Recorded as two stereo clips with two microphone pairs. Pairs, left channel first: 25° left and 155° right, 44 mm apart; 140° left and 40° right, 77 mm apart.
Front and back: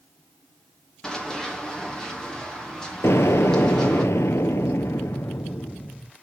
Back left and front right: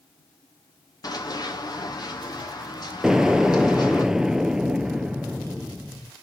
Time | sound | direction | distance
1.0 | running footsteps | 100° left | 3 m
3.0 | an explosion | 40° left | 0.6 m